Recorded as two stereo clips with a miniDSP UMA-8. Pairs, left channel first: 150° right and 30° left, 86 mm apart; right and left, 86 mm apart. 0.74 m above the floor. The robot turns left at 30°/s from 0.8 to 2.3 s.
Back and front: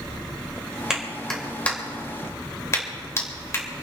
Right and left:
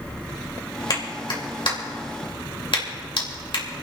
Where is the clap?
55° right, 3 m; by 3.6 s 95° right, 3 m.